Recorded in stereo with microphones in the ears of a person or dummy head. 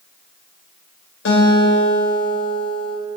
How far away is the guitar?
About 4 m.